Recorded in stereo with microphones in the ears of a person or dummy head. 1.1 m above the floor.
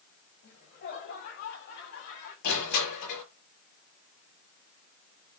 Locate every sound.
0.4 s laughter: 50° left (ahead or behind), 8 m; by 2.3 s 60° left (ahead or behind), 9.5 m
2.4 s crushing: 55° left (ahead or behind), 8.5 m